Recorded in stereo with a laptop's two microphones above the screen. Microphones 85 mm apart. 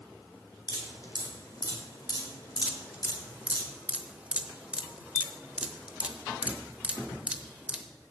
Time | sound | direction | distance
0.7 | dripping | 50° left (ahead or behind) | 4 m
2.6 | dripping | 15° right (ahead or behind) | 0.8 m